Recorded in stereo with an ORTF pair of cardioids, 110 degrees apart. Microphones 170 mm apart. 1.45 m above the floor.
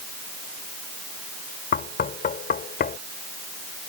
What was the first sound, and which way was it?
Knocking, 60° left.